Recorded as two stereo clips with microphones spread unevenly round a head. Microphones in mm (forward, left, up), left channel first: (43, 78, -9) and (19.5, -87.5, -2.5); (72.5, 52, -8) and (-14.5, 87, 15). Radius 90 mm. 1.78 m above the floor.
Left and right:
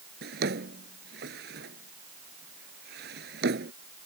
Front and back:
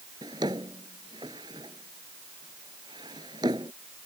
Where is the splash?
I don't hear a splash.